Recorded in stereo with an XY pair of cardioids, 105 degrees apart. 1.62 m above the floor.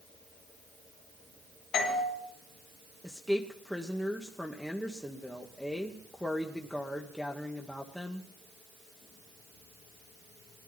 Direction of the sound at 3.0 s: 5° left.